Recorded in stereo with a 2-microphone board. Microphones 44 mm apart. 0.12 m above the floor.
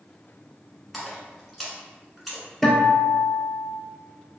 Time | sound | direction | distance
0.9 | a splash | centre (ahead or behind) | 1.1 m
2.6 | a guitar | 5° left (ahead or behind) | 0.9 m